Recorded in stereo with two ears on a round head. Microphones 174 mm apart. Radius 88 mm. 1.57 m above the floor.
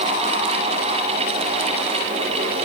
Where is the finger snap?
No finger snap in this recording.